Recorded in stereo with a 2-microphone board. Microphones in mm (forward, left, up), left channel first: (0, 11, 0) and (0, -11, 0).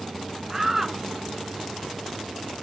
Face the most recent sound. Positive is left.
turn(degrees=-10)  # may be behind; listen again after turning